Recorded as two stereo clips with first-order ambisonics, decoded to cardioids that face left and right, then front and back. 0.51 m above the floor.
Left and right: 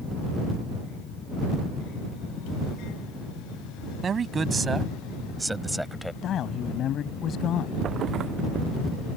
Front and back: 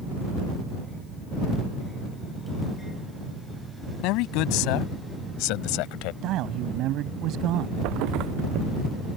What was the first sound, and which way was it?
A man speaking, 20° right.